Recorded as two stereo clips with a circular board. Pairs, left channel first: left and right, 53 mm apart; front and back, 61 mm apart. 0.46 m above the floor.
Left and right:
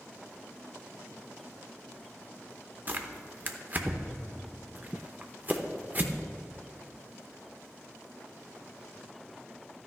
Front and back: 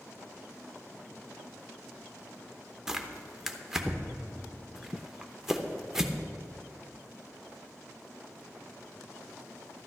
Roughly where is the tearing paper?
Right.